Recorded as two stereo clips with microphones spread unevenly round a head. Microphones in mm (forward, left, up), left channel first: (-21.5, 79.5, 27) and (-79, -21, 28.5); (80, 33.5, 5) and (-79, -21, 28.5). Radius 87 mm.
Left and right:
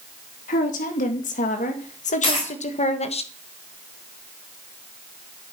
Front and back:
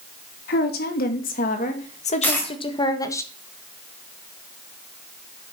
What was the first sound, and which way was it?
A woman speaking, 45° left.